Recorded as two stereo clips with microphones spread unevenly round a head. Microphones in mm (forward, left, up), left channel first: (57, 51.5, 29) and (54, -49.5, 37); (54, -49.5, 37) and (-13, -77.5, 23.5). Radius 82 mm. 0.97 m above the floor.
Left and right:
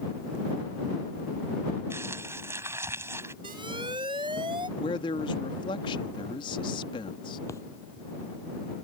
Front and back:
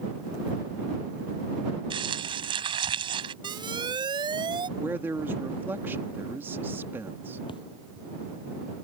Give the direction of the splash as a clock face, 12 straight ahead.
11 o'clock.